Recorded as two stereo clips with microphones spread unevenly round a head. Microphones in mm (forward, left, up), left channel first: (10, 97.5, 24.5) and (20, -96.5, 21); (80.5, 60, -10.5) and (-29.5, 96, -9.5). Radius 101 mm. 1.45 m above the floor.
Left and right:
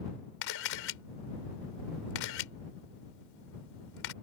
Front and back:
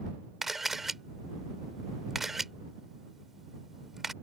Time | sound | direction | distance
0.4 | a camera shutter | 75° left | ?